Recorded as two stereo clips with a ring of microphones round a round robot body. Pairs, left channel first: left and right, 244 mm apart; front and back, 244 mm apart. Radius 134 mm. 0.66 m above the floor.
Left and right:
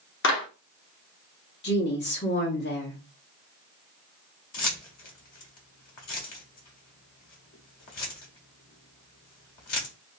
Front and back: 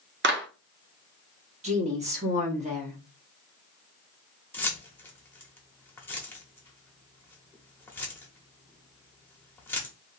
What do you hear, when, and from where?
0.2 s a clap: 135° left, 0.9 m
1.6 s a woman speaking: 125° left, 1.3 m
4.5 s keys jangling: 80° left, 1.1 m